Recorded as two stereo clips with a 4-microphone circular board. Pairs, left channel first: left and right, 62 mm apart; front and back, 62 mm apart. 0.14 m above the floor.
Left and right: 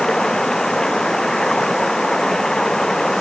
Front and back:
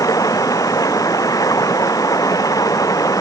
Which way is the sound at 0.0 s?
10° left.